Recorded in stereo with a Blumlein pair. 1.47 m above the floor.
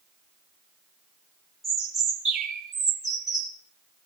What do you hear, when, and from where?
1.6 s a bird: 5° right, 3 m